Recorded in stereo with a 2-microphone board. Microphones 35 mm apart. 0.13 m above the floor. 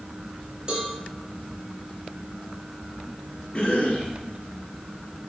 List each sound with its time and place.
0.7 s a cowbell: 30° right (ahead or behind), 1.9 m
3.5 s a cough: 35° left (ahead or behind), 2.5 m